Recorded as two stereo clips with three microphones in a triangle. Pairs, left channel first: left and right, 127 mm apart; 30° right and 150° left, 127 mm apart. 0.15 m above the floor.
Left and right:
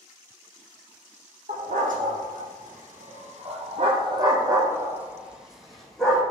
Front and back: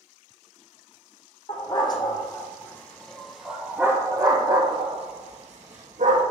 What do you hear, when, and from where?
1.5 s a dog barking: 85° right, 1.9 m; by 6.2 s 175° left, 1.9 m